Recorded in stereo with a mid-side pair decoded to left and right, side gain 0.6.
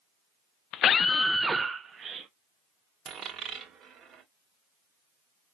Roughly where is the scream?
Ahead left.